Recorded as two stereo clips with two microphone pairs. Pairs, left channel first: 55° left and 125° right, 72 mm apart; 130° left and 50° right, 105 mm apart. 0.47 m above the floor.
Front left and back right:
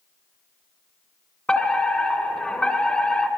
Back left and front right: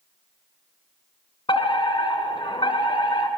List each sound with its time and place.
1.5 s a fire alarm: 125° left, 2.5 m